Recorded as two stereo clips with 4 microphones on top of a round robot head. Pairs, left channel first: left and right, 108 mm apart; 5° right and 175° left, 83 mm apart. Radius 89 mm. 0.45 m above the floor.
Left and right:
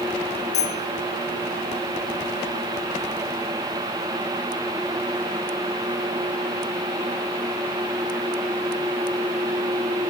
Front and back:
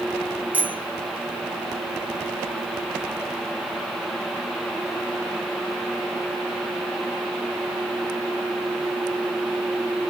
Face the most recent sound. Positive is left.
turn(degrees=105)